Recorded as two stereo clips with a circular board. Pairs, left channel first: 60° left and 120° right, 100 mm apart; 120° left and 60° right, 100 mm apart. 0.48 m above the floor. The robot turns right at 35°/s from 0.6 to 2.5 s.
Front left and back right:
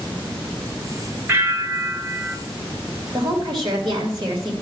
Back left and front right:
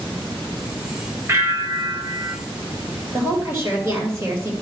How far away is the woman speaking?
About 2.5 m.